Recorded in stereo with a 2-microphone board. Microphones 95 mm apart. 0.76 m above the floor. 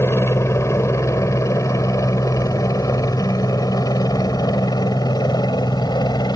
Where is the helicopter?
30° left (ahead or behind); by 6.4 s 50° left (ahead or behind).